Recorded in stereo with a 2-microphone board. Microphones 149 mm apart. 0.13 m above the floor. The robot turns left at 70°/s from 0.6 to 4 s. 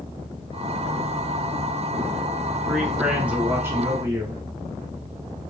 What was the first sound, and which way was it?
A man speaking, 5° left (ahead or behind).